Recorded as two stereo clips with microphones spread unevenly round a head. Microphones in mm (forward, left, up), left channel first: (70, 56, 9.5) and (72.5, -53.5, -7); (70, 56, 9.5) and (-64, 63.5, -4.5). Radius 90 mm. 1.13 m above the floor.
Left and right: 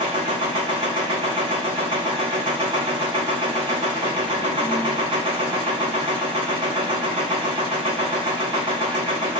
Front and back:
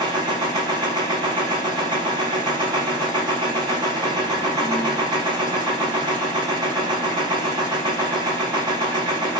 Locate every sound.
0.0 s a machine running: 125° right, 0.8 m